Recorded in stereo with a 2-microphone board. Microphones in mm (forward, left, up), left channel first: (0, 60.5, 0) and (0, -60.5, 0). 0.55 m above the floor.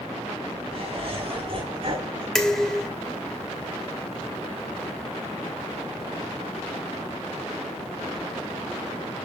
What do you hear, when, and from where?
0.7 s laughter: 45° right (ahead or behind), 4.5 m
2.4 s dishes clattering: 5° left (ahead or behind), 1.4 m